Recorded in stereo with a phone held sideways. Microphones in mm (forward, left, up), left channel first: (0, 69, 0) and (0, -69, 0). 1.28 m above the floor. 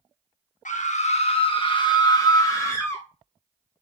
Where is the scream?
65° left (ahead or behind), 1.0 m; by 3.0 s 15° left (ahead or behind), 1.8 m.